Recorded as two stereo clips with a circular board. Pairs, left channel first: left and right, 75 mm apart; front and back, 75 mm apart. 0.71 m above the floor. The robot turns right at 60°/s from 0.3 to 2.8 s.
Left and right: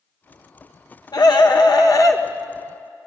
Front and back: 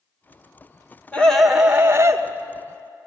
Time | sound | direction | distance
1.1 | a scream | 70° left | 2 m